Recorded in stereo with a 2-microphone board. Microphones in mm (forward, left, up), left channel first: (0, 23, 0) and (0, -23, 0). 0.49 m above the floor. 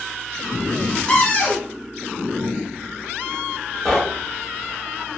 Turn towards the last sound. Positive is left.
turn(degrees=5)  # may be behind; listen again after turning